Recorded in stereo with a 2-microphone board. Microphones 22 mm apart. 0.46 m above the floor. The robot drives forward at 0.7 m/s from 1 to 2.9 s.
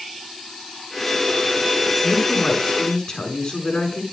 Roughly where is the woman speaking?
Left.